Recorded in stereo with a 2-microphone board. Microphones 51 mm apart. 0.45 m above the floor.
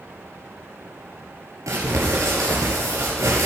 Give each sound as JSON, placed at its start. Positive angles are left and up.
{"t": 1.7, "sound": "crumpling", "side_deg": -85, "distance_m": 6.5}